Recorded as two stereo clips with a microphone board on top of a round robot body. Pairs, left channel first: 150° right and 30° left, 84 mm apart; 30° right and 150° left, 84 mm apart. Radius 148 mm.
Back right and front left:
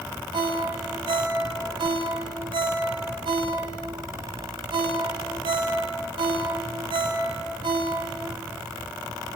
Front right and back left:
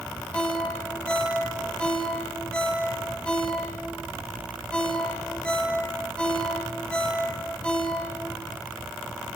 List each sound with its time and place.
0.3 s a ringtone: 50° left, 3.5 m